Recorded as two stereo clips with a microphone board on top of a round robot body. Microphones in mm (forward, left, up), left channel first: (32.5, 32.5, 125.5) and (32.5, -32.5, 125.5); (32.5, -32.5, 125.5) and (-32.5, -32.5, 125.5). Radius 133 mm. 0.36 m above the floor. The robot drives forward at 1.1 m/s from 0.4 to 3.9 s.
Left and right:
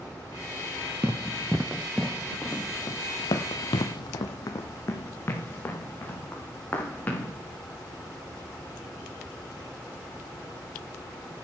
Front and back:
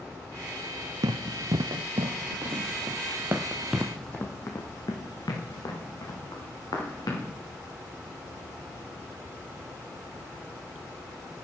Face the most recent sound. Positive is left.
turn(degrees=25)